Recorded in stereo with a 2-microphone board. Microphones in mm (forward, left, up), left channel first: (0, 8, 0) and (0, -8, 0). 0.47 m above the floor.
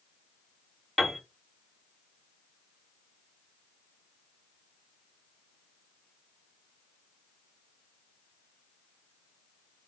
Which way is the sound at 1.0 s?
20° left (ahead or behind).